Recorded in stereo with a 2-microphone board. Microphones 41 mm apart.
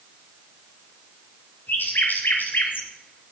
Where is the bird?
55° left (ahead or behind), 3 m.